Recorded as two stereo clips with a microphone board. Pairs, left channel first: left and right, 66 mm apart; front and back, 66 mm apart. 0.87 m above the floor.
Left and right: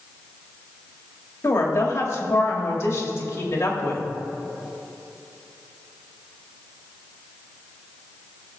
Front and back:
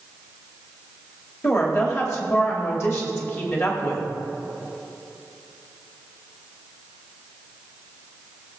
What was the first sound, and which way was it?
A woman speaking, 45° left.